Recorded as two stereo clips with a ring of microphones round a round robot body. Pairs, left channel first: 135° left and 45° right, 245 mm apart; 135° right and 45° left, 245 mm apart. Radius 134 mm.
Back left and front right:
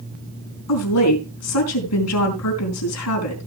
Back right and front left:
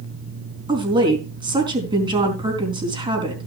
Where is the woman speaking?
115° left, 4 m.